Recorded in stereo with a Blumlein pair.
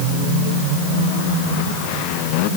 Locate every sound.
Only background noise.